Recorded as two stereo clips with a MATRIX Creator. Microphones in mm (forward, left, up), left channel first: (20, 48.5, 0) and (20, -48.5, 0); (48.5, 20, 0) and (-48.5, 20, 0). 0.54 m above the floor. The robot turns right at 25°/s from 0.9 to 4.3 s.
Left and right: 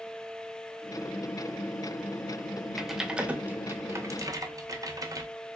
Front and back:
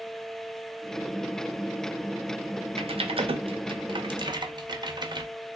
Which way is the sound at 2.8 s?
Straight behind.